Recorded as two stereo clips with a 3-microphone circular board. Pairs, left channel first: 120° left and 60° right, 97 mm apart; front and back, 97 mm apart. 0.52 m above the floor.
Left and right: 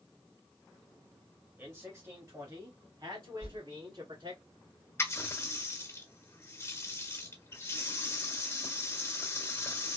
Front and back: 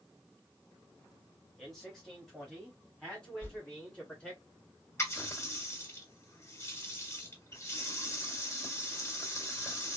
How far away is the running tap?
About 1.3 m.